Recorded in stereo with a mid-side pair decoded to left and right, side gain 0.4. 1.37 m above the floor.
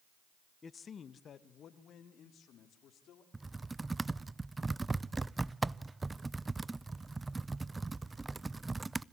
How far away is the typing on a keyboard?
About 0.5 m.